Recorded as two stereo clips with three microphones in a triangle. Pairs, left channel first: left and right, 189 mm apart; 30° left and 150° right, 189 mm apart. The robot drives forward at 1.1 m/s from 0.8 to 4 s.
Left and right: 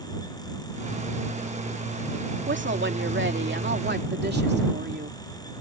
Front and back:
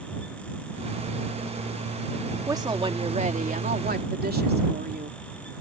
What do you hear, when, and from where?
2.5 s a woman speaking: 80° right; by 5.2 s 115° right